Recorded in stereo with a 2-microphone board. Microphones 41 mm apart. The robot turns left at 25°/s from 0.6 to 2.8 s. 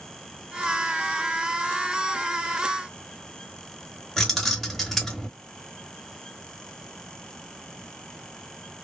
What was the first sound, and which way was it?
Keys jangling, 5° left (ahead or behind).